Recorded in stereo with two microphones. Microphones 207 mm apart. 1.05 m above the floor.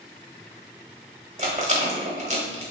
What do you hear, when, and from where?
1.4 s a rattle: 35° right (ahead or behind), 0.9 m